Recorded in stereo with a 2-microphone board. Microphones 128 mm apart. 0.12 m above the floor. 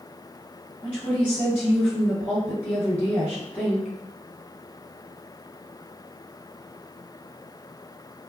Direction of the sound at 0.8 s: 15° left (ahead or behind).